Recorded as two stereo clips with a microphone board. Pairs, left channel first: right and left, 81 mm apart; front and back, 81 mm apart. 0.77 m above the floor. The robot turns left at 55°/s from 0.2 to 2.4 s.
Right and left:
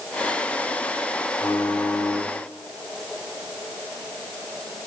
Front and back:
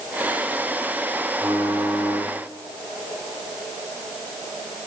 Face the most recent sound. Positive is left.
turn(degrees=170)